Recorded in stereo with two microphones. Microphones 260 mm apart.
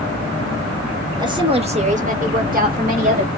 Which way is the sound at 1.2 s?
15° right (ahead or behind).